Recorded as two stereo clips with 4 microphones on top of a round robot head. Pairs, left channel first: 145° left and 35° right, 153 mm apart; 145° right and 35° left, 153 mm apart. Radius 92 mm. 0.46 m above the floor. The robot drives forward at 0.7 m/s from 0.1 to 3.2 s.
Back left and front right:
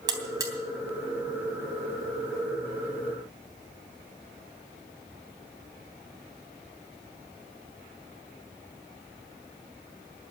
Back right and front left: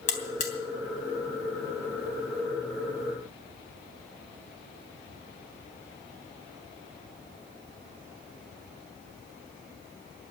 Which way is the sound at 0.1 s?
100° right.